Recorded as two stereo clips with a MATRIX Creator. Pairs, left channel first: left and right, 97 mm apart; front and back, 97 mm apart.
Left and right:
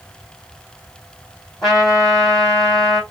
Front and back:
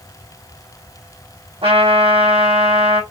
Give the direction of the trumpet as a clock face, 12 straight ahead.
6 o'clock.